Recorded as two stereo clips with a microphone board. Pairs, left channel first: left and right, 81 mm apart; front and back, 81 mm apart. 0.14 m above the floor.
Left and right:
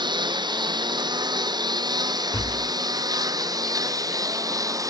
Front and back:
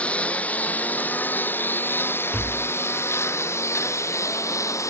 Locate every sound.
0.0 s a lawn mower: 75° right; by 4.9 s 50° right
2.3 s tapping: 105° left